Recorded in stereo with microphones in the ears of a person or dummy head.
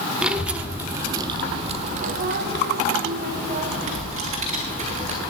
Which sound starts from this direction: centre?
A child speaking, at 0.2 s.